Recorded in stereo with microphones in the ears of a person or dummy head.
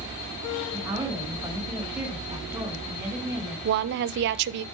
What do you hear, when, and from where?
0.7 s a woman speaking: 15° right (ahead or behind), 3.5 m
3.6 s a woman speaking: 55° right (ahead or behind), 0.5 m